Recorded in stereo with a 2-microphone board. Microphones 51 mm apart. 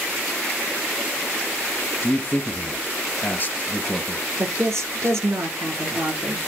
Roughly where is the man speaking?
Left.